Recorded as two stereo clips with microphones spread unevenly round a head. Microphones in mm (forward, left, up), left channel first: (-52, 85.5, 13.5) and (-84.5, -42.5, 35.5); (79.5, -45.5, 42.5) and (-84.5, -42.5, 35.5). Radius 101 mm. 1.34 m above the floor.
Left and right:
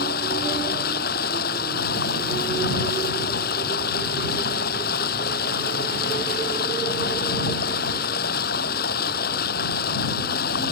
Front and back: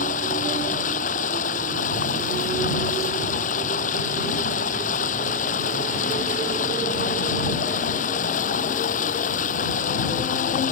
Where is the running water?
50° left.